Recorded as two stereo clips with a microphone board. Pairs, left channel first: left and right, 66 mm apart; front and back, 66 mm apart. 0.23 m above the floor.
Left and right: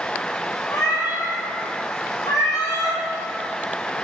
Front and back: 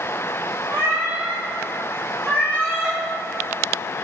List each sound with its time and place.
0.7 s a cat meowing: 130° left, 1.9 m; by 3.0 s 55° left, 3 m